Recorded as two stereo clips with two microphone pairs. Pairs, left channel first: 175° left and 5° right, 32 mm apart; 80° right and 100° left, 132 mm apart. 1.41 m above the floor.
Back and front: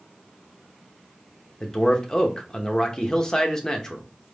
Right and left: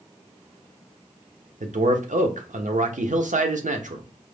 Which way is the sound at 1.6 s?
105° left.